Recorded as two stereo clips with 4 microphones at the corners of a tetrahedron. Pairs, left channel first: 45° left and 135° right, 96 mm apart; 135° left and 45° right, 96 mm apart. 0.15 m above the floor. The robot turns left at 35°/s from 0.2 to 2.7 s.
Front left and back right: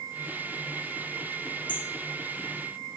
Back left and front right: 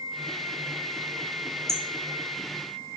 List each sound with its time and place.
1.7 s hammering: 85° left, 1.8 m; by 3.0 s 50° left, 1.8 m